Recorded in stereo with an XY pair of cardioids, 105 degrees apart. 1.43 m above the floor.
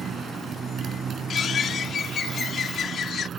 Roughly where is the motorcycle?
Ahead right.